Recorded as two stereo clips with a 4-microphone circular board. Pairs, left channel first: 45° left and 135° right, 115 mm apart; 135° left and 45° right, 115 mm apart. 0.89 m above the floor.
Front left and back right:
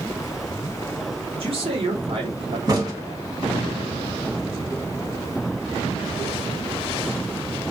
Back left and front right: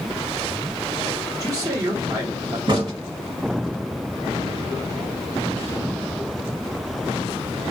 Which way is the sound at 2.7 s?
85° right.